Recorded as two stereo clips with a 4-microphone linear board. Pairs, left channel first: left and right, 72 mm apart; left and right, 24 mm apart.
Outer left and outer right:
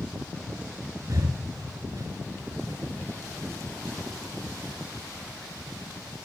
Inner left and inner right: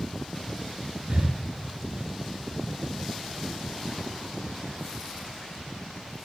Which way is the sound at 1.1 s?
55° right (ahead or behind).